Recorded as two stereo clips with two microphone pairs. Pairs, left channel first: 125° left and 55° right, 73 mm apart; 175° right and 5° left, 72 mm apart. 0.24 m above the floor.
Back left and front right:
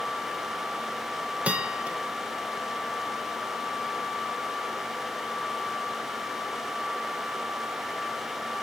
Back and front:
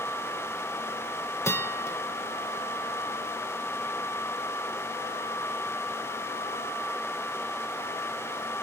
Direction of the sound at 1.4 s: 125° right.